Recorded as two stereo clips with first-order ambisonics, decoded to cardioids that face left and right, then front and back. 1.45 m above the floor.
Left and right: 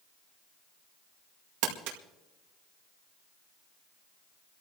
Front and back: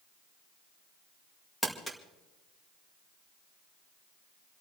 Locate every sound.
1.6 s crumpling: 85° right, 2.0 m